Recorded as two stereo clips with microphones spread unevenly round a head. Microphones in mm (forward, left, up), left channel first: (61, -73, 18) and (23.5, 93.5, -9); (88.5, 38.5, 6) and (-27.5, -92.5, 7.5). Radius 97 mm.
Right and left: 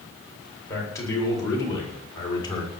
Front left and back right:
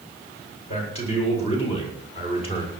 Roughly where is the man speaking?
Ahead.